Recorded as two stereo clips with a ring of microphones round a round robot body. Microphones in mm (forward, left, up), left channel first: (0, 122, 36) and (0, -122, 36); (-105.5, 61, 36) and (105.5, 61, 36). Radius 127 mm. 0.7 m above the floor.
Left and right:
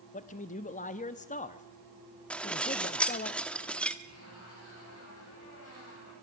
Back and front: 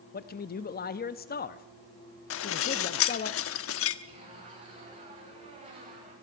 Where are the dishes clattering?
175° left, 0.9 m.